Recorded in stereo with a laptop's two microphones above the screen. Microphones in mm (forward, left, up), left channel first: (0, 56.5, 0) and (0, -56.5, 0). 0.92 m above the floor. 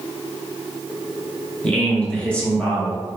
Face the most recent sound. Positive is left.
turn(degrees=10)  # may be behind; listen again after turning